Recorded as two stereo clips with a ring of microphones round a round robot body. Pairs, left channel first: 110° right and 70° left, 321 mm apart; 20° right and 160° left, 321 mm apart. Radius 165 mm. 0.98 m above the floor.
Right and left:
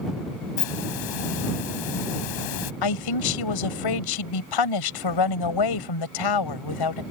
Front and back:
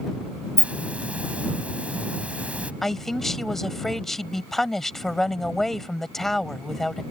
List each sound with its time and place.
0.6 s a hiss: 115° right
2.8 s a man speaking: 110° right